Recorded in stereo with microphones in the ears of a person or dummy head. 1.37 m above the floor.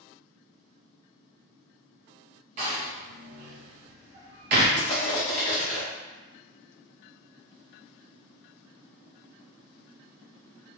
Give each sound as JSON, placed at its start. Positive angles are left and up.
{"t": 2.6, "sound": "a door slam", "side_deg": -35, "distance_m": 0.5}
{"t": 4.8, "sound": "crushing", "side_deg": 30, "distance_m": 0.6}